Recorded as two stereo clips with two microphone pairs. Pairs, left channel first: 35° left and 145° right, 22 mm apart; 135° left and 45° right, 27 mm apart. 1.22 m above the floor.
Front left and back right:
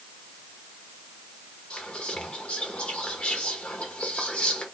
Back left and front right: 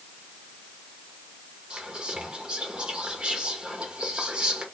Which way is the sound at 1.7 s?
10° left.